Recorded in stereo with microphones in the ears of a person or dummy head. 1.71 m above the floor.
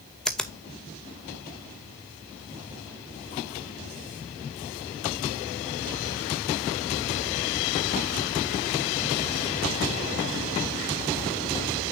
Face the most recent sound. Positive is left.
turn(degrees=0)  # may be behind; listen again after turning